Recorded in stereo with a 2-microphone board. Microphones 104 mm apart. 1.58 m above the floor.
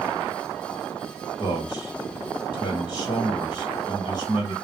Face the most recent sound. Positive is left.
turn(degrees=40)  # may be behind; listen again after turning